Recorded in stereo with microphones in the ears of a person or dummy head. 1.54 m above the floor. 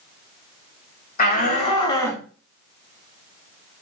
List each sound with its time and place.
1.2 s a shout: 40° left (ahead or behind), 1.3 m; by 2.2 s 5° right (ahead or behind), 0.6 m